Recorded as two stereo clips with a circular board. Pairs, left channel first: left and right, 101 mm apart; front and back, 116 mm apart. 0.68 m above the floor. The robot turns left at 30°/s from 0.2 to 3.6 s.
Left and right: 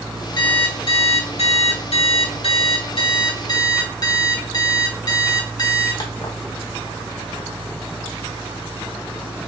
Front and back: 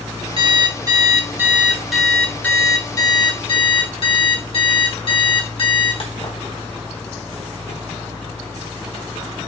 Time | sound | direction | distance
0.4 | an alarm clock | 135° left | 1.3 m